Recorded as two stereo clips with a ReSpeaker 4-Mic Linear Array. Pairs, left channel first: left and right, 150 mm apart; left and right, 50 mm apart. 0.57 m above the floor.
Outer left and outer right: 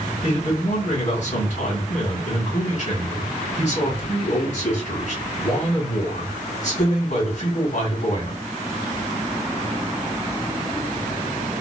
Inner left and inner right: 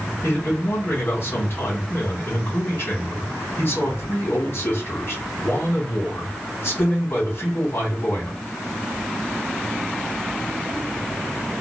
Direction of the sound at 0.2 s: 50° left (ahead or behind).